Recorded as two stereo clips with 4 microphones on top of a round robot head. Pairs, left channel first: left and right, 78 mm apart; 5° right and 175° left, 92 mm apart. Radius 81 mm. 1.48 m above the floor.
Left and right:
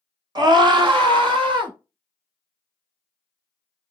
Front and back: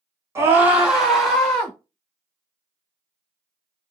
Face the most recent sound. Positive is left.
turn(degrees=-85)